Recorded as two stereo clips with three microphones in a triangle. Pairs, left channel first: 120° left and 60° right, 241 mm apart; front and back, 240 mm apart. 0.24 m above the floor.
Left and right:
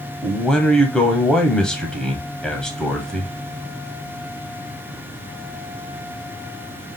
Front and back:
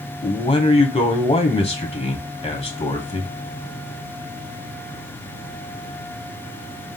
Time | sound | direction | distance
0.2 | a man speaking | 35° left | 1.0 m